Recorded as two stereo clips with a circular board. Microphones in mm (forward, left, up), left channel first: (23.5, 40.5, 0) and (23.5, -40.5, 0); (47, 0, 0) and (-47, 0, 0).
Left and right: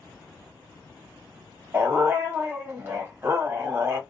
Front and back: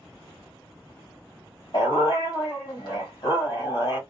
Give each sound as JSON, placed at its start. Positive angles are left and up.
{"t": 1.7, "sound": "a dog barking", "azimuth_deg": -30, "distance_m": 1.5}